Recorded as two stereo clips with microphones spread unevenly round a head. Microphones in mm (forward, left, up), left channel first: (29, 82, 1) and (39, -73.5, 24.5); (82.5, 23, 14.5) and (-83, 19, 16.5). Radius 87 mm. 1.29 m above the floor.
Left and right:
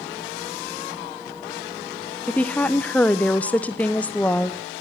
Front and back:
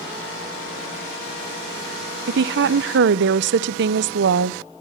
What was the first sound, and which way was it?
A woman speaking, 170° left.